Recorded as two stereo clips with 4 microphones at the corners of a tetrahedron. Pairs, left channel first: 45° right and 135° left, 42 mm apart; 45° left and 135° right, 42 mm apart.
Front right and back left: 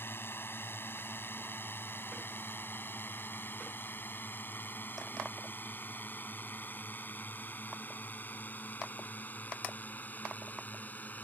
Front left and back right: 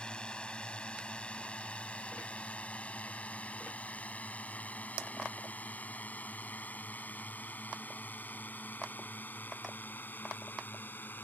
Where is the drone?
20° right; by 11.2 s 5° left.